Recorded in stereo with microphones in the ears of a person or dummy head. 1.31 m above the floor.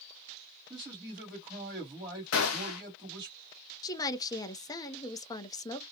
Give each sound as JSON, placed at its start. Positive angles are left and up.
{"t": 0.7, "sound": "a man speaking", "side_deg": -20, "distance_m": 1.3}
{"t": 2.3, "sound": "a gunshot", "side_deg": 75, "distance_m": 0.6}
{"t": 3.8, "sound": "a woman speaking", "side_deg": 20, "distance_m": 0.6}